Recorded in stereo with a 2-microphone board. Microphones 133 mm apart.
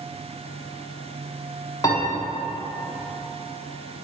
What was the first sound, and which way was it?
A piano, 30° left (ahead or behind).